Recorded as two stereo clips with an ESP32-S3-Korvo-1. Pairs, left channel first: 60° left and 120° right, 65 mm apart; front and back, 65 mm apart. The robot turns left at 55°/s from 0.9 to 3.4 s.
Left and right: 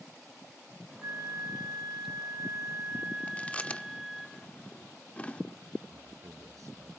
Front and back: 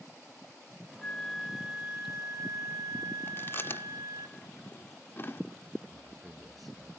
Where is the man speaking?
90° right, 6.5 m.